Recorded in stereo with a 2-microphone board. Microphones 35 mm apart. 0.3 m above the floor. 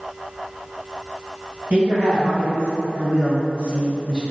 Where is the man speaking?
55° right (ahead or behind), 1.8 m; by 4.2 s 20° right (ahead or behind), 1.1 m.